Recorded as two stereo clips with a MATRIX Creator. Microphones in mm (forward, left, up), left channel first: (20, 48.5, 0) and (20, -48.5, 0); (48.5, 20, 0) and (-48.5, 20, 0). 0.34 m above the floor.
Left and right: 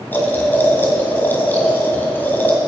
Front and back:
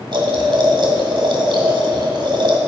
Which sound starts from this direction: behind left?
Boiling, at 0.1 s.